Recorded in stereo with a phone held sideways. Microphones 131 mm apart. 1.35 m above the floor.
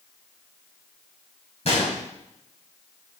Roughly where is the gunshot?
Left.